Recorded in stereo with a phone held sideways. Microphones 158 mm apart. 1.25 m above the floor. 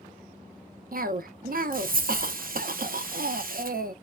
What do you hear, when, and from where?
0.9 s a cough: 65° right (ahead or behind), 0.6 m